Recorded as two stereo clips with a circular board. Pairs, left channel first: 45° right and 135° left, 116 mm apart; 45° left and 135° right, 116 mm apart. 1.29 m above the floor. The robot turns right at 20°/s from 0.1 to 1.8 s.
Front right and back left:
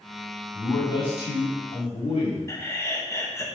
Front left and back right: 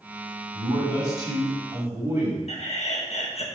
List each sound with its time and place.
0.5 s a man speaking: 95° right, 3.5 m; by 2.4 s 70° right, 3.5 m
2.5 s laughter: 20° left, 1.5 m